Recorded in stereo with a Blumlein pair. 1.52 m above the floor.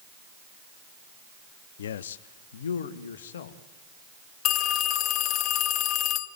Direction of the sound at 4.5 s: 35° left.